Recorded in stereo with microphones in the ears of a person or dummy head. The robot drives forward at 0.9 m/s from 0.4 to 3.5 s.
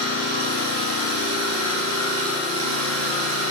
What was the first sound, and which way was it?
An engine running, 65° right (ahead or behind).